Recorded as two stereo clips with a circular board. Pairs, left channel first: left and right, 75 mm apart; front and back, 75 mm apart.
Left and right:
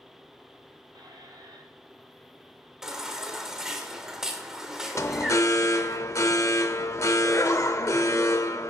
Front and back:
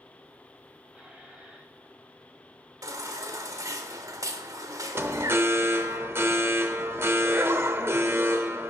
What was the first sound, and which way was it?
A squeak, 105° right.